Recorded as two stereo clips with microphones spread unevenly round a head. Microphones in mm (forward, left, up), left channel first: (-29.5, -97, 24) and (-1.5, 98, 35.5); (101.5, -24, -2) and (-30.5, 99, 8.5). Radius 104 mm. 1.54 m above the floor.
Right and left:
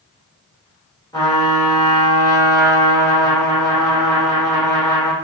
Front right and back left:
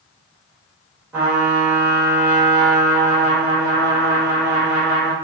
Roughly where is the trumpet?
Behind.